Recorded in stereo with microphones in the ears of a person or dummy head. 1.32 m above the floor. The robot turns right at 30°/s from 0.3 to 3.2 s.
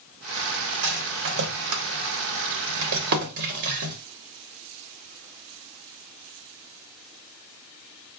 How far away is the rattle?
About 0.9 m.